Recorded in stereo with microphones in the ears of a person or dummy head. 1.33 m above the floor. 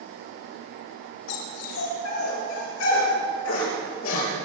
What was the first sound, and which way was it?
A dog barking, 75° left (ahead or behind).